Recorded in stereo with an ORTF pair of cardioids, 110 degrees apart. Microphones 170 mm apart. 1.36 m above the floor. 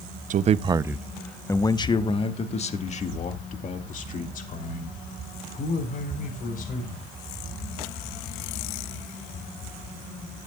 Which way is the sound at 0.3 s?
50° right.